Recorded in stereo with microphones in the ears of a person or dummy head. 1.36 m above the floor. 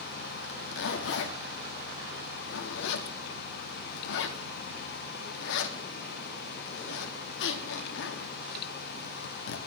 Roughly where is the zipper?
Left.